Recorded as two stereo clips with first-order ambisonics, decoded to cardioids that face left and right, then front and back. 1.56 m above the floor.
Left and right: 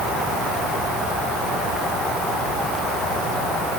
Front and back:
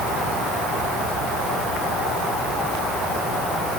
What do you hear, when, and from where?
Only background noise.